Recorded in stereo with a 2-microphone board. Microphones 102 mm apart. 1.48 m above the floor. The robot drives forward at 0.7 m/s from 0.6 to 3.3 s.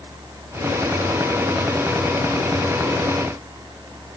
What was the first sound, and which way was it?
Only background noise.